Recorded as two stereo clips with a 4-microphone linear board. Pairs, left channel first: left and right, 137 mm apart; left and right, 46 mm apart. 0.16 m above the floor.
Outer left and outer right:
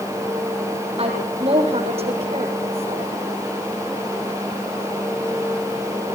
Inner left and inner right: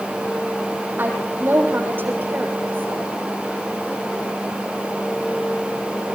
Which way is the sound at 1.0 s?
45° right (ahead or behind).